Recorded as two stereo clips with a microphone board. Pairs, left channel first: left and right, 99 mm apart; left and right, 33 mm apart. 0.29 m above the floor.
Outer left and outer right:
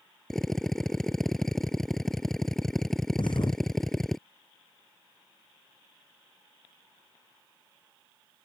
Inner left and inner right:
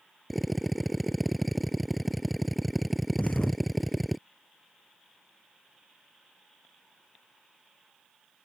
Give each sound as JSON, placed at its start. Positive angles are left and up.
{"t": 0.3, "sound": "a drill", "side_deg": 5}
{"t": 3.2, "sound": "a thud", "side_deg": 55}